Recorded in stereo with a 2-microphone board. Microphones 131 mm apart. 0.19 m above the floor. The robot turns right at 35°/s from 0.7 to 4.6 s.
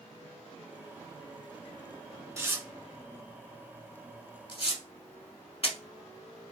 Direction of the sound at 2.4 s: 25° right (ahead or behind).